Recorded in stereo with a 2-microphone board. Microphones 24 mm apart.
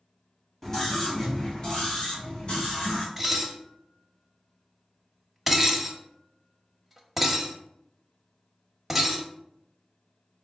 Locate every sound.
0.6 s a scream: 20° left (ahead or behind), 1.6 m; by 3.1 s 55° left (ahead or behind), 2 m
3.2 s dishes clattering: 5° right (ahead or behind), 0.7 m